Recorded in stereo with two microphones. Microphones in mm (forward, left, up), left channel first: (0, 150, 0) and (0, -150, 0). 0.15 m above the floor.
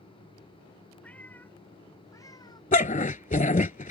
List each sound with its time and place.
1.0 s a cat meowing: 5° left (ahead or behind); by 2.6 s 15° left (ahead or behind)
2.7 s a dog barking: 25° left (ahead or behind)